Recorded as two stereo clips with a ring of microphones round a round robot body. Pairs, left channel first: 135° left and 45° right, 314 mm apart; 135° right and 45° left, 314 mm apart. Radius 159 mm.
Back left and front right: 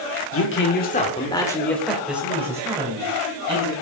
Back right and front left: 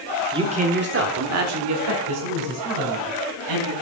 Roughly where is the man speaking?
Behind left.